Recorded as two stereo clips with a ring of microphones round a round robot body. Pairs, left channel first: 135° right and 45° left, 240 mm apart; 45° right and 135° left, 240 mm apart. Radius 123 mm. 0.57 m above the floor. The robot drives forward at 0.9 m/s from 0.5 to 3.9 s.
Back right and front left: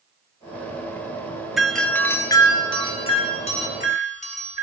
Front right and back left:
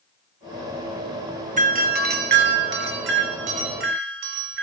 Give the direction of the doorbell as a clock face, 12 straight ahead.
8 o'clock.